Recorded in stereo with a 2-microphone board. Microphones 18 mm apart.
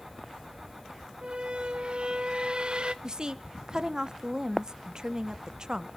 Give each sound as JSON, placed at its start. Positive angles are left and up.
{"t": 1.2, "sound": "a squeak", "side_deg": -55, "distance_m": 1.2}
{"t": 3.0, "sound": "a woman speaking", "side_deg": -35, "distance_m": 1.2}